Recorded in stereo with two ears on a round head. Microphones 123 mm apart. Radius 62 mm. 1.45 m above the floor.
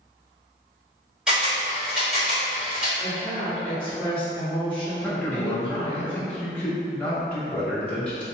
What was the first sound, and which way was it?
A camera shutter, 5° right (ahead or behind).